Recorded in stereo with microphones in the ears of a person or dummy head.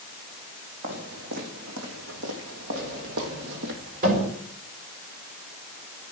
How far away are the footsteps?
About 5 m.